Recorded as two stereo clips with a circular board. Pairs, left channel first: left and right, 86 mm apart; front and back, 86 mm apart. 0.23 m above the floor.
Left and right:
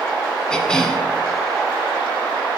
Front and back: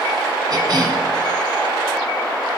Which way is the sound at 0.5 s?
170° left.